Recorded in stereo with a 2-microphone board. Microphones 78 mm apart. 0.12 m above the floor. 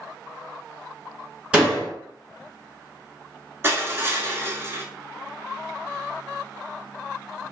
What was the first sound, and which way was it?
A door slam, 15° right (ahead or behind).